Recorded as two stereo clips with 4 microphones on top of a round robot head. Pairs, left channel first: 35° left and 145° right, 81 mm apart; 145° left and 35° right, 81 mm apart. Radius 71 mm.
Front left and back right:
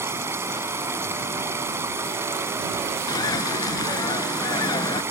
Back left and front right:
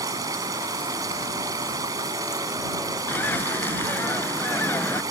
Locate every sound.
0.0 s running water: 85° right
3.1 s a bird: 80° left